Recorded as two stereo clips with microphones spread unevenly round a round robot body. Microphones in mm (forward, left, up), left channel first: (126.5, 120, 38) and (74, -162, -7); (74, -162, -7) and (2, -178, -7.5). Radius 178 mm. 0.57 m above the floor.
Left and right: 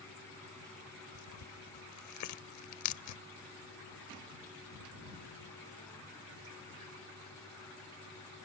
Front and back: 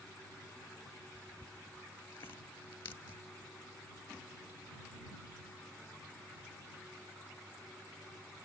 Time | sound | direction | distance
1.1 | tearing paper | 55° left | ?